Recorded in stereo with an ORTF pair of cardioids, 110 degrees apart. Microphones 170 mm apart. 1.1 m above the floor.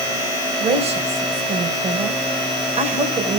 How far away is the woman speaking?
About 4.5 m.